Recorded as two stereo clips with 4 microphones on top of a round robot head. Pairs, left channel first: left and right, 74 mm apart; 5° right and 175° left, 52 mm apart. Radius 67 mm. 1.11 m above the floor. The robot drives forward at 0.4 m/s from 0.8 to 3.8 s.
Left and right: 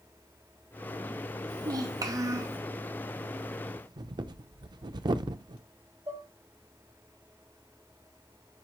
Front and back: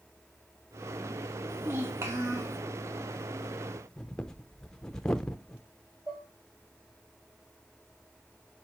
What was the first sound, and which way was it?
A child speaking, 125° right.